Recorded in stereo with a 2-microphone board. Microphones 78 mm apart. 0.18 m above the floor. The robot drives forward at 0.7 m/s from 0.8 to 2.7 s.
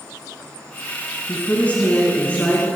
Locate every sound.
1.3 s a woman speaking: 20° left (ahead or behind), 1.8 m; by 2.7 s 15° left (ahead or behind), 2.5 m